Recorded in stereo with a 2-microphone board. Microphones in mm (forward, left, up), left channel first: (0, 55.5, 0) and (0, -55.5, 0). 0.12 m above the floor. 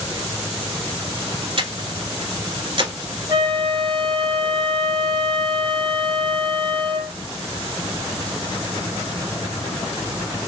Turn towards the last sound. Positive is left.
turn(degrees=-35)  # may be behind; listen again after turning